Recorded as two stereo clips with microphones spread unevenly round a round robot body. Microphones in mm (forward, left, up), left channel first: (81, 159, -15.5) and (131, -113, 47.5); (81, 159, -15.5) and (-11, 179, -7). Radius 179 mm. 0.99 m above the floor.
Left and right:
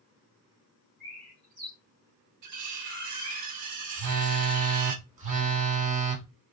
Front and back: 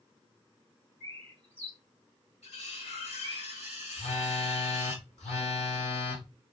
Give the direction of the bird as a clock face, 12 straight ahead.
4 o'clock.